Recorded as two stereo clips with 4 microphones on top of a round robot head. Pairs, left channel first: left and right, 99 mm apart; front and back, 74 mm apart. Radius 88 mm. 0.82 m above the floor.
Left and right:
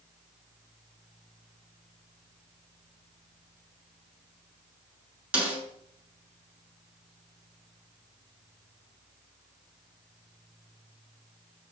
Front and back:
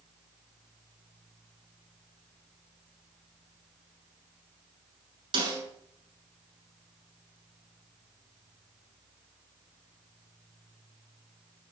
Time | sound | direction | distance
5.3 | a snare drum | 170° right | 8.5 m